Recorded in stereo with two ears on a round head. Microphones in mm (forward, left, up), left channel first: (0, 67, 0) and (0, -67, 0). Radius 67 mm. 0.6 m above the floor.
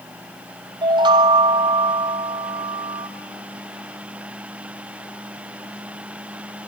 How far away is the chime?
About 0.6 m.